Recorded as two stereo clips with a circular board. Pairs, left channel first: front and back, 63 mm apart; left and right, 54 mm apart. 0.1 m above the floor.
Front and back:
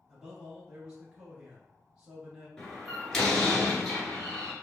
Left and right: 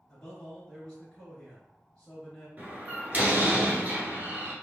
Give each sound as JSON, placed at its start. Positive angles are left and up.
{"t": 0.1, "sound": "a man speaking", "azimuth_deg": 145, "distance_m": 1.3}
{"t": 2.6, "sound": "a door slam", "azimuth_deg": -75, "distance_m": 1.3}